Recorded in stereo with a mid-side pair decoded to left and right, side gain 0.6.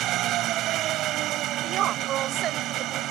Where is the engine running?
60° right.